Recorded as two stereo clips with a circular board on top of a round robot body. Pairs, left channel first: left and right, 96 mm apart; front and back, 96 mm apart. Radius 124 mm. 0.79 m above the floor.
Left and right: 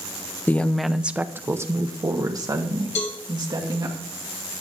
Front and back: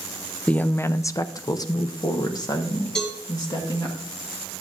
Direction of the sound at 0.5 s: 55° left.